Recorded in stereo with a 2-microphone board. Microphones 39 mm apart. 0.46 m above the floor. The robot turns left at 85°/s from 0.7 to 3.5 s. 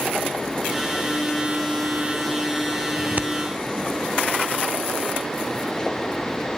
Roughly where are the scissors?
Right.